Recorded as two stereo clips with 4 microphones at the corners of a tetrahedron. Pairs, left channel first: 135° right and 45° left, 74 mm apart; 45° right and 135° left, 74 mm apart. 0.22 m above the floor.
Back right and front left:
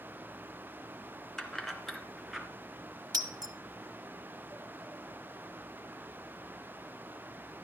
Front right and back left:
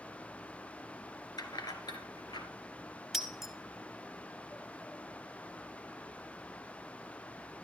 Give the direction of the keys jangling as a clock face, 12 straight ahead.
2 o'clock.